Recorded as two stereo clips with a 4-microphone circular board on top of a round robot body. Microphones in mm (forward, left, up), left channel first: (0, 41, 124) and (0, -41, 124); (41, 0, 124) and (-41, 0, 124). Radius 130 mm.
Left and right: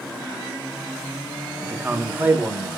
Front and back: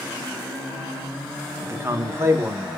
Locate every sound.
1.6 s a man speaking: 145° right, 1.0 m